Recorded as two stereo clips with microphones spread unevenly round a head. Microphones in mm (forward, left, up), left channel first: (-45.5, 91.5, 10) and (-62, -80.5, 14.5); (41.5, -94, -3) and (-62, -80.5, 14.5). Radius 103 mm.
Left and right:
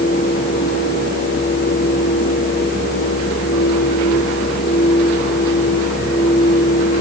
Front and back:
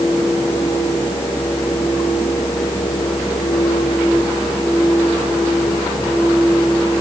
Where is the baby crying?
I don't hear a baby crying.